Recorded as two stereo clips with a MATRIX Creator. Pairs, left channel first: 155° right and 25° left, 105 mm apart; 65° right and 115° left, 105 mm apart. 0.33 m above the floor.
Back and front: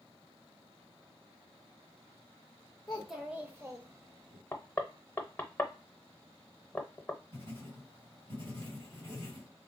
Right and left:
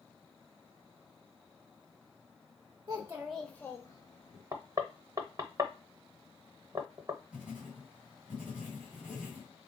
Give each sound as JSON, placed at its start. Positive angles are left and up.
{"t": 2.9, "sound": "a child speaking", "azimuth_deg": 125, "distance_m": 0.7}
{"t": 4.5, "sound": "knocking", "azimuth_deg": 140, "distance_m": 0.7}
{"t": 7.3, "sound": "writing", "azimuth_deg": 35, "distance_m": 2.0}